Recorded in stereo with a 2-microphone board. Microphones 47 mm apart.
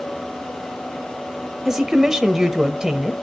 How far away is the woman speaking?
About 0.9 m.